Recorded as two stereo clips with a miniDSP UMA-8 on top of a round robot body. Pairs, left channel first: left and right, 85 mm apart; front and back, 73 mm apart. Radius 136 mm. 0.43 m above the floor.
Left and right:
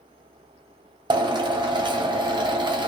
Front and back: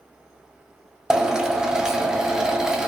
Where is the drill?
100° right, 0.9 m.